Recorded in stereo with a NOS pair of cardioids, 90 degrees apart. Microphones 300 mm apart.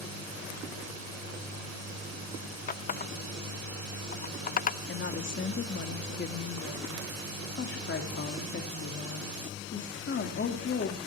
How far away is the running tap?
About 0.5 m.